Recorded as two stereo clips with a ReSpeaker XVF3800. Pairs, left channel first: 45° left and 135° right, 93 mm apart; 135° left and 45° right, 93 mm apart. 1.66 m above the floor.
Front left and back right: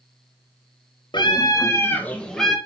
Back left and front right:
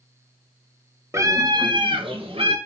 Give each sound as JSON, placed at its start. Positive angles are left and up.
{"t": 1.1, "sound": "a scream", "azimuth_deg": 15, "distance_m": 1.5}